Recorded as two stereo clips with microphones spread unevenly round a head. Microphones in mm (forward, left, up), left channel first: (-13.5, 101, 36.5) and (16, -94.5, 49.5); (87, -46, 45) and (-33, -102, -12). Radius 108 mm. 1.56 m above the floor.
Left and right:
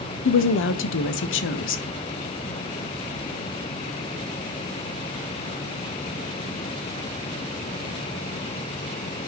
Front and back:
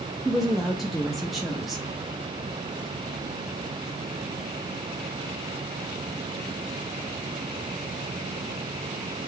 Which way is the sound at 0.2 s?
120° left.